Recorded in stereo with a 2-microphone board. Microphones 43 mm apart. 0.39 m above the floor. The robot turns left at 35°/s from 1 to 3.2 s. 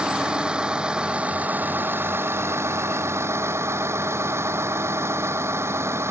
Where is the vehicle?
20° right; by 6.1 s 100° right.